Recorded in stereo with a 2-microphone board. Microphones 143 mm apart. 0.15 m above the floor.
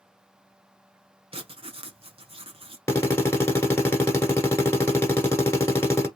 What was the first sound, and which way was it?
Writing, 40° right (ahead or behind).